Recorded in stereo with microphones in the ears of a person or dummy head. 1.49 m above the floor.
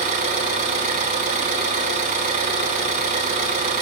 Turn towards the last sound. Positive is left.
turn(degrees=-35)  # may be behind; listen again after turning